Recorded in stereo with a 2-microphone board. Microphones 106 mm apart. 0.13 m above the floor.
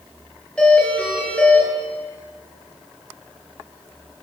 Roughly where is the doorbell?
Centre.